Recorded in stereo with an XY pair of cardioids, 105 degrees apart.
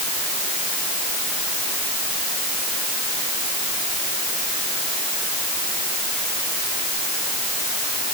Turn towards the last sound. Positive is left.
No sound to turn to.